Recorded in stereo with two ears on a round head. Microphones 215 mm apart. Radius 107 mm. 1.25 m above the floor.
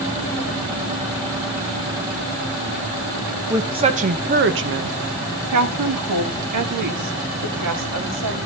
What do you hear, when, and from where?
3.5 s a woman speaking: 15° right (ahead or behind), 1.1 m; by 8.4 s 80° right, 3 m